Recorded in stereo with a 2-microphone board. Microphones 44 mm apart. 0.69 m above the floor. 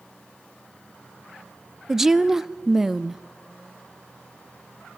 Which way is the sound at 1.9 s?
10° right (ahead or behind).